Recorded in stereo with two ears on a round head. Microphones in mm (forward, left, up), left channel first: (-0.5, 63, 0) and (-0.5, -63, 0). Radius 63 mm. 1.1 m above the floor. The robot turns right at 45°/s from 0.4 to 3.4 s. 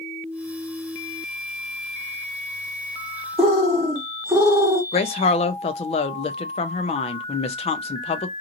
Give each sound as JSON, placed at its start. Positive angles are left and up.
{"t": 3.4, "sound": "a bird", "side_deg": -15, "distance_m": 1.1}
{"t": 4.9, "sound": "a woman speaking", "side_deg": 45, "distance_m": 0.5}